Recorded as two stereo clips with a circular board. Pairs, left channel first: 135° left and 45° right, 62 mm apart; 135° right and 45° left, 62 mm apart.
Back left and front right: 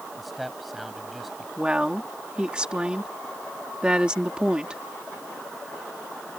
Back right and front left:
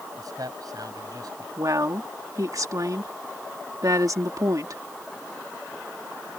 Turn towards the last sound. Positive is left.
turn(degrees=30)